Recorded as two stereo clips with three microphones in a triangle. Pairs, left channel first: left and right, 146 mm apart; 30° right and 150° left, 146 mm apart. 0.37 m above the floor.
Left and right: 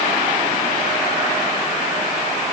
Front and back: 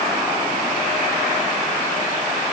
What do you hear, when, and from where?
Only background noise.